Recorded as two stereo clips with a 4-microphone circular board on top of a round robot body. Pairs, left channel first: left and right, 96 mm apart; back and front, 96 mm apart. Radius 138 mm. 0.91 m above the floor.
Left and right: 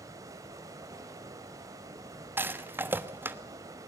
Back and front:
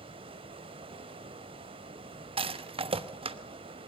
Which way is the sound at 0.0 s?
30° right.